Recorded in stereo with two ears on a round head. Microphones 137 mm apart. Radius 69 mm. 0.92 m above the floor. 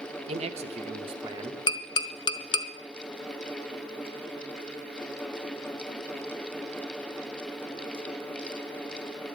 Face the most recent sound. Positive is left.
turn(degrees=30)  # may be behind; listen again after turning